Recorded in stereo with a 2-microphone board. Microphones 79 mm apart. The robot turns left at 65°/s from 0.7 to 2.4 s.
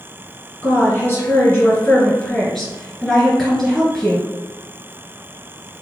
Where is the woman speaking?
20° left (ahead or behind), 1.8 m; by 4.3 s centre (ahead or behind), 1.8 m.